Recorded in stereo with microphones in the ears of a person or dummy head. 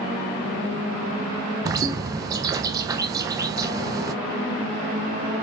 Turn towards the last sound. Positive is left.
turn(degrees=-20)  # may be behind; listen again after turning